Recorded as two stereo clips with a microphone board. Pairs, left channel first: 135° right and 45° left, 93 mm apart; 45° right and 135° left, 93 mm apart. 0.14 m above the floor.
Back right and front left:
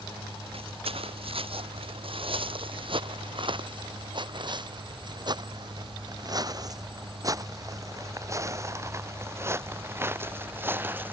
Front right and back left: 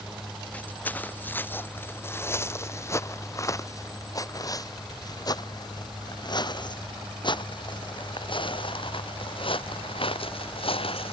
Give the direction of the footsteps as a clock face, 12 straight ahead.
11 o'clock.